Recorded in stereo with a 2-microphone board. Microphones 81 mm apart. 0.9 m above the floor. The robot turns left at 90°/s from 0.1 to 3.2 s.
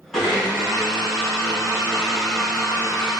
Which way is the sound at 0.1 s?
5° left.